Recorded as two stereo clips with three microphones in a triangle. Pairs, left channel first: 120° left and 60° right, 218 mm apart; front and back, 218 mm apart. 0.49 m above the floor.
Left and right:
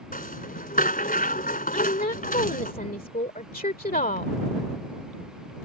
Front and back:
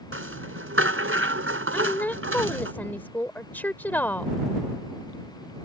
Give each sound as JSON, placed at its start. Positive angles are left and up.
{"t": 0.1, "sound": "a rattle", "azimuth_deg": 170}
{"t": 1.7, "sound": "a woman speaking", "azimuth_deg": 80}